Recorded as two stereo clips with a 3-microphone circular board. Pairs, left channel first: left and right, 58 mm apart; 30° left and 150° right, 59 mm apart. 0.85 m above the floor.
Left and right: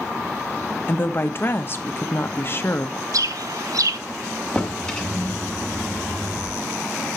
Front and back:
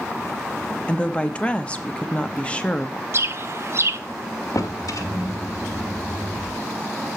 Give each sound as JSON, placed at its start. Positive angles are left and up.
{"t": 0.9, "sound": "a woman speaking", "azimuth_deg": 90, "distance_m": 0.9}
{"t": 3.1, "sound": "a bird", "azimuth_deg": -105, "distance_m": 0.5}
{"t": 4.5, "sound": "a drawer", "azimuth_deg": 15, "distance_m": 1.5}